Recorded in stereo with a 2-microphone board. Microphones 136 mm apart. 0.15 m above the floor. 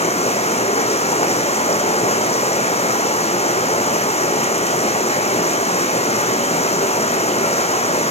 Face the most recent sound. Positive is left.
turn(degrees=45)  # may be behind; listen again after turning